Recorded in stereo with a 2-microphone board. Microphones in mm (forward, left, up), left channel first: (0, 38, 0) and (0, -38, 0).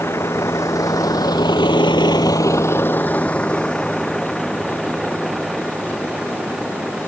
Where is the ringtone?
No ringtone in this recording.